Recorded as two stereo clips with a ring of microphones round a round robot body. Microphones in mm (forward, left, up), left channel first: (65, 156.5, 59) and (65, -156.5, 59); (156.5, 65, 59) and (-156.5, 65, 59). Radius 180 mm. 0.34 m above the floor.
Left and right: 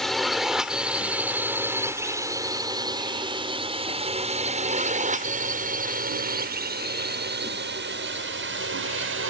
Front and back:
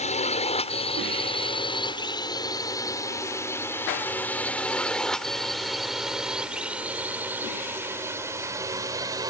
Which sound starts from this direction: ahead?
A drone, at 0.0 s.